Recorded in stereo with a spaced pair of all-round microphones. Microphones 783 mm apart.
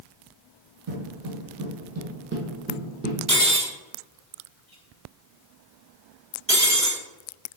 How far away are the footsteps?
About 2 m.